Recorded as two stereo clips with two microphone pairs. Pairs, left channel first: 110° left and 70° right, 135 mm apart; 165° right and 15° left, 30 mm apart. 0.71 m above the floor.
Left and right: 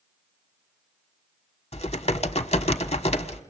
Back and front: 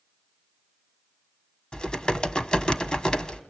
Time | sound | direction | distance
1.7 | typing on a keyboard | 140° left | 1.4 m